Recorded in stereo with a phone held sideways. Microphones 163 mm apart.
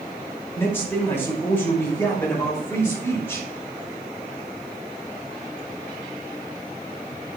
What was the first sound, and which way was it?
A man speaking, 15° left (ahead or behind).